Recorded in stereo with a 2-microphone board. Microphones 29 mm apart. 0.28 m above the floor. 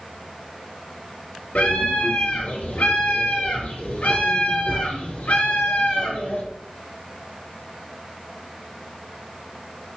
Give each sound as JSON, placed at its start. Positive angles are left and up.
{"t": 1.6, "sound": "a scream", "side_deg": 70, "distance_m": 4.5}